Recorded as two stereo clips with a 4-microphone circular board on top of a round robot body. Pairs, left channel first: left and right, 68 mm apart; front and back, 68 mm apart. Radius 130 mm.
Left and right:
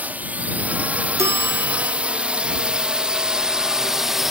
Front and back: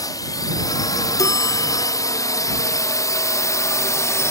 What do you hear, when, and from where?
0.0 s a drone: 25° right; by 4.3 s 5° right
1.2 s a bell: 40° right